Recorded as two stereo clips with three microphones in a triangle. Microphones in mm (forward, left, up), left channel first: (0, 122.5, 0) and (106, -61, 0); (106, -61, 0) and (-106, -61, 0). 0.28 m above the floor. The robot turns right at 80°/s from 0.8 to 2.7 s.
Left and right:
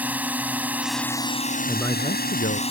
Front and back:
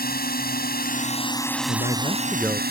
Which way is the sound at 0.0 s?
20° left.